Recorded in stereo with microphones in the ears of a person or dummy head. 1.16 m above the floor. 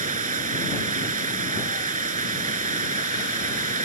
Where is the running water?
40° right (ahead or behind).